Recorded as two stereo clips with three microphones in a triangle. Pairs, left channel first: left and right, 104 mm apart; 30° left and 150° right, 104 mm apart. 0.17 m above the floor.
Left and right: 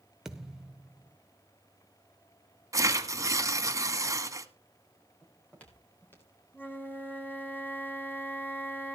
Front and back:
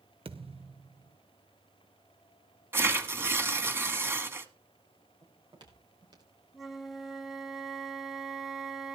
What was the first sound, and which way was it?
A thud, 175° right.